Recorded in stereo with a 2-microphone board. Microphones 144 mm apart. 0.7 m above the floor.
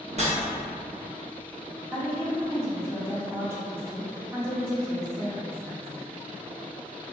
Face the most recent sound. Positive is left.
turn(degrees=-20)  # may be behind; listen again after turning